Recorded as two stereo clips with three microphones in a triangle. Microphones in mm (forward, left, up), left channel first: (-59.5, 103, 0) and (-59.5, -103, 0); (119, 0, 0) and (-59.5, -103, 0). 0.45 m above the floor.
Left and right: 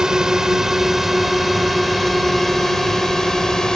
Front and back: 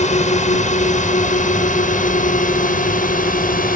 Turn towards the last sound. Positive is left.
turn(degrees=5)